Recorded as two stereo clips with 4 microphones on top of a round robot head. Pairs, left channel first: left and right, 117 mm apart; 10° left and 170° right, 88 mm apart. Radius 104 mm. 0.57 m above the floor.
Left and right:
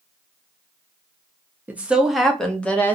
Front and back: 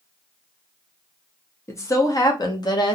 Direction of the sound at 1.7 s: 25° right.